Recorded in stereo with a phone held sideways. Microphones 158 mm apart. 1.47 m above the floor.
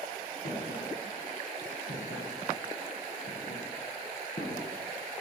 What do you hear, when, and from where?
0.5 s footsteps: 70° left (ahead or behind), 4 m; by 5.2 s 30° left (ahead or behind), 1.7 m